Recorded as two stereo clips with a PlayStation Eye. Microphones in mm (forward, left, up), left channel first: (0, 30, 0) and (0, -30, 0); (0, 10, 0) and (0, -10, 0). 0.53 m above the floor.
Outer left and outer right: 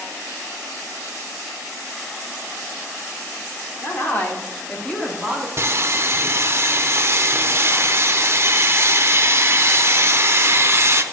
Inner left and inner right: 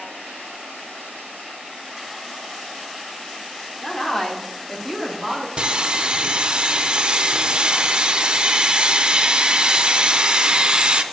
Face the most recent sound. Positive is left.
turn(degrees=-45)  # may be behind; listen again after turning